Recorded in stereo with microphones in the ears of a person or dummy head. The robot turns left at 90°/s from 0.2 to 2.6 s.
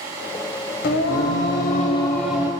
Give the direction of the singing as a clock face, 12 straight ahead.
8 o'clock.